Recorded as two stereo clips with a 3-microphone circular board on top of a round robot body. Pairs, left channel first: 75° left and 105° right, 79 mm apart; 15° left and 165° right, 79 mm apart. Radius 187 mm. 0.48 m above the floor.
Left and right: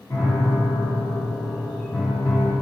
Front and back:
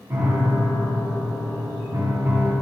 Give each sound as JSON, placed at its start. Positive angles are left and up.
{"t": 0.1, "sound": "a piano", "azimuth_deg": 135, "distance_m": 1.5}